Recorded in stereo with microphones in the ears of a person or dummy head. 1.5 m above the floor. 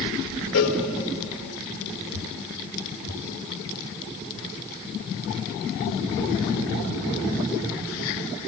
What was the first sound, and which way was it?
A cowbell, 85° left.